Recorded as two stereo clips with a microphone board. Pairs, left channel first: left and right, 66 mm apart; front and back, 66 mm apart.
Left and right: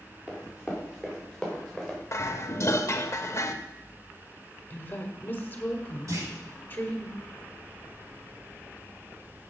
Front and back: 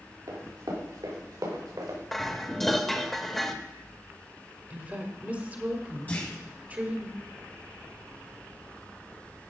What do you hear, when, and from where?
0.3 s running footsteps: 170° right, 5 m; by 2.0 s straight behind, 5.5 m
2.1 s dishes clattering: 85° left, 0.8 m
4.7 s a woman speaking: 130° left, 1.4 m
6.1 s a clunk: 65° right, 3.5 m